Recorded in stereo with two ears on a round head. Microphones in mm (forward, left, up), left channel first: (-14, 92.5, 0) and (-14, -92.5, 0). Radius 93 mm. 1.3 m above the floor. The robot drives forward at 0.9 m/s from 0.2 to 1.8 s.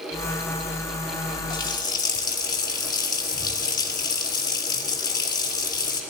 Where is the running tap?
20° left (ahead or behind), 4 m.